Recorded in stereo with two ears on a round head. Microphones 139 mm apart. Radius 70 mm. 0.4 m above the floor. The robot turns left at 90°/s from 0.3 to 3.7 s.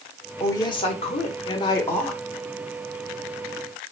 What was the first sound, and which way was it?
A woman speaking, 160° left.